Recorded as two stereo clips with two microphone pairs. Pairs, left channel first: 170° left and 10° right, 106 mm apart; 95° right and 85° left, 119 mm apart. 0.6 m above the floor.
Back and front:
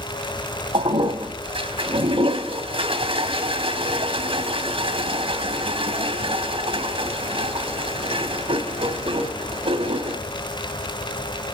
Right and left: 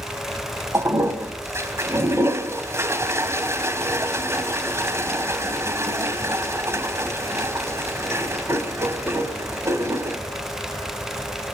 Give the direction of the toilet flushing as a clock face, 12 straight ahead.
11 o'clock.